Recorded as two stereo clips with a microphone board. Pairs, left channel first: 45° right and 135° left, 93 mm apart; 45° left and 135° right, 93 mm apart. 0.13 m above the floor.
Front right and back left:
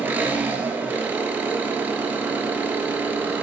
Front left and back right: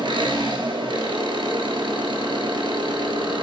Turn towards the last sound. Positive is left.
turn(degrees=-160)